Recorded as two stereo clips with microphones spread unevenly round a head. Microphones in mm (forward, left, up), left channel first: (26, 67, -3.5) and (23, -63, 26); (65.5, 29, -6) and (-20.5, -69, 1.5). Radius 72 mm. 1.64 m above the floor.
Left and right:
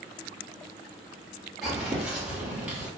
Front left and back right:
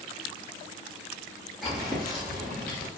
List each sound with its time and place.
1.6 s footsteps: 45° right, 1.7 m; by 2.9 s 30° right, 2 m